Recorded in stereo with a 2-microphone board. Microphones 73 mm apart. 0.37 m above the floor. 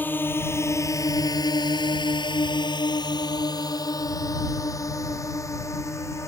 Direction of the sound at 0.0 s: 25° left (ahead or behind).